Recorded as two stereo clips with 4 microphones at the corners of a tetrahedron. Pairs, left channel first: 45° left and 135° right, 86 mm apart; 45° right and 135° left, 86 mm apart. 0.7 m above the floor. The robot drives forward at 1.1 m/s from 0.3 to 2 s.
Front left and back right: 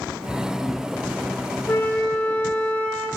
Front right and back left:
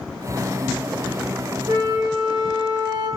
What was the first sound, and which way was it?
A flute, 100° left.